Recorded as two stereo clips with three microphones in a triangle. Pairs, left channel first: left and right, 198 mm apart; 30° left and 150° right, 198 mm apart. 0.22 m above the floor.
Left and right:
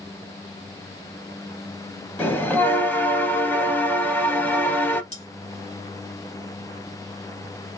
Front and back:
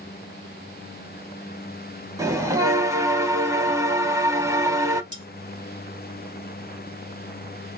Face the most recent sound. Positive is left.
turn(degrees=150)